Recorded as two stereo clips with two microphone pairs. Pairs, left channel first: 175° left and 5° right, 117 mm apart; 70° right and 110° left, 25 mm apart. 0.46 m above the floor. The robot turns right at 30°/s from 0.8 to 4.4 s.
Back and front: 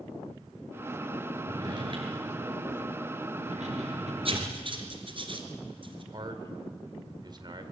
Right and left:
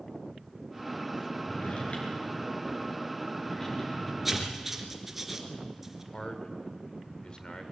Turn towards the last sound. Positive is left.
turn(degrees=-40)